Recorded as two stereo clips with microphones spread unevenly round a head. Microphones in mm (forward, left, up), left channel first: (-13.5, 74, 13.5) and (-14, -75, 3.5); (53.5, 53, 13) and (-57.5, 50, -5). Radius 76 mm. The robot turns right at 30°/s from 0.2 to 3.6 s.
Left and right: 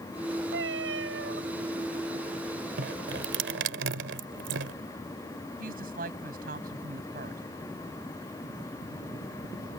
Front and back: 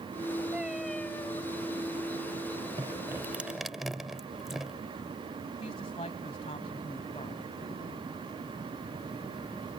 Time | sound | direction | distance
0.5 | a cat meowing | 95° right | ?
2.8 | dripping | 110° right | ?
5.6 | a woman speaking | 55° right | ?